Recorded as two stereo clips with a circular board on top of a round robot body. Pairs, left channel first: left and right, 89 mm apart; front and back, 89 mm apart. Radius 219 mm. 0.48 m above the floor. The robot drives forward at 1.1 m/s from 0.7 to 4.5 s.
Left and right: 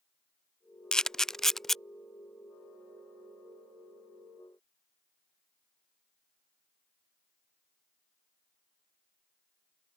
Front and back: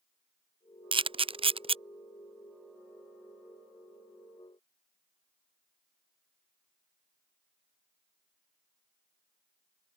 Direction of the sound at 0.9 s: 170° left.